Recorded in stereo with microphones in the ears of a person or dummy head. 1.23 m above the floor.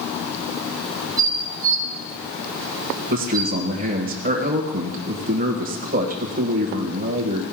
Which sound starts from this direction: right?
A man speaking, at 3.1 s.